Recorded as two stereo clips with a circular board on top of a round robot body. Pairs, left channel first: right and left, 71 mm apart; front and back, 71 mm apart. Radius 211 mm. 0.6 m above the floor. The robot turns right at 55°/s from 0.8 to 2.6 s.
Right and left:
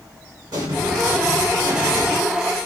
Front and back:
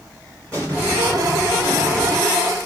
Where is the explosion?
70° left, 2.5 m; by 2.2 s 145° left, 2.5 m.